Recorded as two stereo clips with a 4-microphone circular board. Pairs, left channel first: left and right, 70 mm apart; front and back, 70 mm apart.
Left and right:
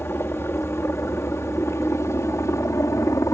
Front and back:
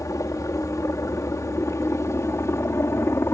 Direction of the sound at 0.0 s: 35° left.